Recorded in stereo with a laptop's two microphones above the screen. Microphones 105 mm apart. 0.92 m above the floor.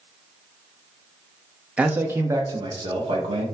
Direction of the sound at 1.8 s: 10° right (ahead or behind).